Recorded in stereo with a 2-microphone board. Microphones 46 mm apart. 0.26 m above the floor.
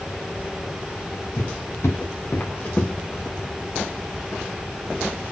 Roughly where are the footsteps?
Left.